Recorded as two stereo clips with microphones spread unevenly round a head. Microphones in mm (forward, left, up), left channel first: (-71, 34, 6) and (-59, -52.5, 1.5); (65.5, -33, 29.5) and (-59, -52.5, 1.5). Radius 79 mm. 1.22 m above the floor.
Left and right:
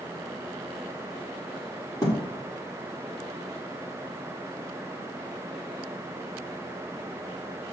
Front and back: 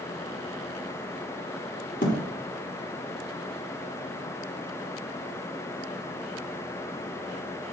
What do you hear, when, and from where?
2.0 s a thud: 35° left, 1.4 m